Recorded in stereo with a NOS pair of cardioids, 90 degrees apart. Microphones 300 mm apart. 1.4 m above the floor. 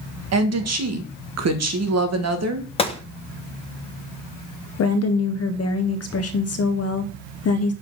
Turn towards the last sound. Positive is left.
turn(degrees=55)